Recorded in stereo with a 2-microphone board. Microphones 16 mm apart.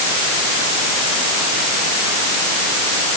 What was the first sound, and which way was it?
Only background noise.